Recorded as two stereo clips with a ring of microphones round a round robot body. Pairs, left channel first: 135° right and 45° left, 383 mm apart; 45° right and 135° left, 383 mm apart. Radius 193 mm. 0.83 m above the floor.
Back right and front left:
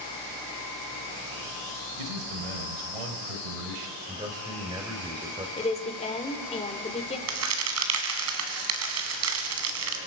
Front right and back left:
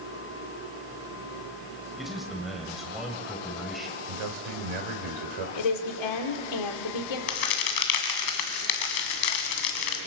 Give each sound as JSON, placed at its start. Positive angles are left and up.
{"t": 2.0, "sound": "a man speaking", "azimuth_deg": 45, "distance_m": 3.5}
{"t": 4.1, "sound": "a man speaking", "azimuth_deg": 125, "distance_m": 3.5}
{"t": 5.6, "sound": "a woman speaking", "azimuth_deg": -60, "distance_m": 2.5}
{"t": 7.3, "sound": "a crack", "azimuth_deg": -10, "distance_m": 2.5}